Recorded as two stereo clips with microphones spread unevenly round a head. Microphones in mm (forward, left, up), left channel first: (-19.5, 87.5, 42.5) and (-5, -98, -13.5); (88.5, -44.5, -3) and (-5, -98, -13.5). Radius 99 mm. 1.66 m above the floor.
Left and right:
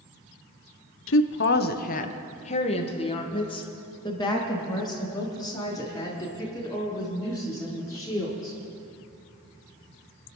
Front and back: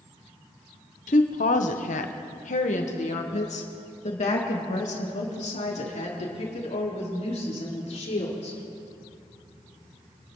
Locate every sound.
1.1 s a woman speaking: 65° left, 0.8 m; by 8.6 s 15° left, 5.5 m